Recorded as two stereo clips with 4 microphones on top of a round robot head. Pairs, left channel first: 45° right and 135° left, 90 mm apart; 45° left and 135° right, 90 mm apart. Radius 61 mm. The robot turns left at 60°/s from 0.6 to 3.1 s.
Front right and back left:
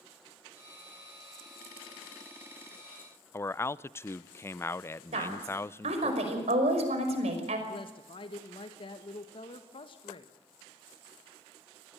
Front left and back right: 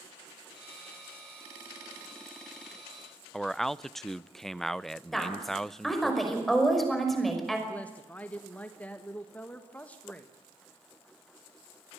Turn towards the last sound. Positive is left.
turn(degrees=-30)